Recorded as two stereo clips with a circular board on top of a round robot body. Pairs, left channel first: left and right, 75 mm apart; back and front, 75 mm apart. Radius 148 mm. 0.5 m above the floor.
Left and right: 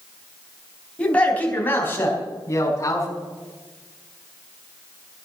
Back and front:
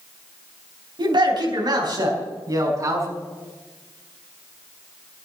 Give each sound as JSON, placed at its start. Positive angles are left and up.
{"t": 1.0, "sound": "a man speaking", "azimuth_deg": 15, "distance_m": 4.0}